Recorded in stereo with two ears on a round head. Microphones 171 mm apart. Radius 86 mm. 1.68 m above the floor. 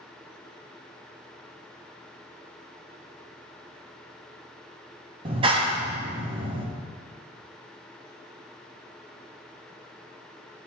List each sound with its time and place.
5.2 s a clap: 30° right (ahead or behind), 0.8 m